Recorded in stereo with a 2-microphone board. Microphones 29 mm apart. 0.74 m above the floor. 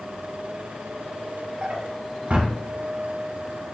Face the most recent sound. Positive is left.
turn(degrees=-45)  # may be behind; listen again after turning